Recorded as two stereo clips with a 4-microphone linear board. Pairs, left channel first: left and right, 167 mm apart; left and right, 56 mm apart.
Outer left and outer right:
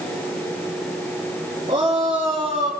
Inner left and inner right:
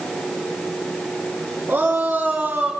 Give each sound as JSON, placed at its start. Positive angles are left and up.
{"t": 1.7, "sound": "a shout", "side_deg": -35, "distance_m": 8.0}